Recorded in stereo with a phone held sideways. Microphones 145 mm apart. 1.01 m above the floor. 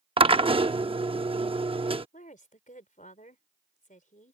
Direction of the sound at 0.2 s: 40° right (ahead or behind).